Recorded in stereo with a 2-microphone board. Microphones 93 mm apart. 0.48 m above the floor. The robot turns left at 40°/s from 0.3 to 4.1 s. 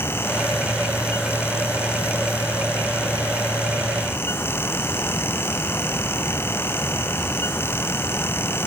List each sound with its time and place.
Only background noise.